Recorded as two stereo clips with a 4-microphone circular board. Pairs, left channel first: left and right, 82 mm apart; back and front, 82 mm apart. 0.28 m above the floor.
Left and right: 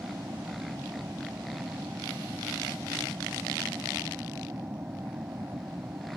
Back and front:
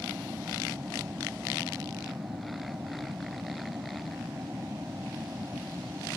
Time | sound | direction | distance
0.0 | an aircraft | 50° right | ?